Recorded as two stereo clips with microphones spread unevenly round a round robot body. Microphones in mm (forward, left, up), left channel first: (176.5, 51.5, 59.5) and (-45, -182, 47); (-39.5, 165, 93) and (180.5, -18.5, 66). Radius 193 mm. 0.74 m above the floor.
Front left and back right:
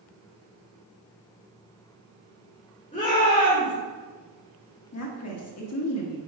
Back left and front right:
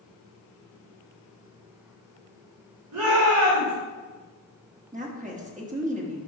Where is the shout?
20° right, 2 m.